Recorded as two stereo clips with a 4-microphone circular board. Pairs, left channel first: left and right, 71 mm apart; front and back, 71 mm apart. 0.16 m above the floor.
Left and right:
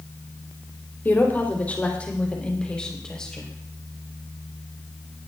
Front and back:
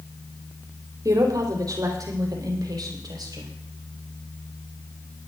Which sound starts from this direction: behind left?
A woman speaking, at 1.1 s.